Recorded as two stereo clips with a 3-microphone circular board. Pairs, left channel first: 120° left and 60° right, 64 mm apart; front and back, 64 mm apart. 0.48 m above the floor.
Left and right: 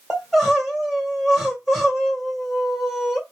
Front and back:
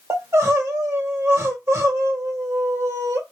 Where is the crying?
145° right, 1.9 m.